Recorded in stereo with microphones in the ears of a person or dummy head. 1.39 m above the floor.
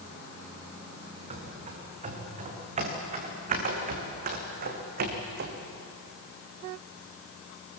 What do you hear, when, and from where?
1.3 s running footsteps: 30° right (ahead or behind), 6.5 m; by 5.5 s 45° right (ahead or behind), 3.5 m